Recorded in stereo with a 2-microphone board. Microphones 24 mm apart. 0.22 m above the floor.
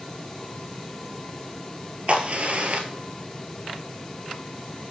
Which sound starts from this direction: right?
A crack, at 2.1 s.